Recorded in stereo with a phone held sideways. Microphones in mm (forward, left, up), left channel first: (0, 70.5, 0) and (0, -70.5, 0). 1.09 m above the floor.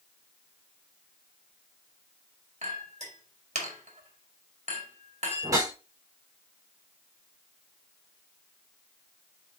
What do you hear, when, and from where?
2.6 s a clink: 50° right (ahead or behind), 1.9 m
5.4 s a whoosh: 25° right (ahead or behind), 4 m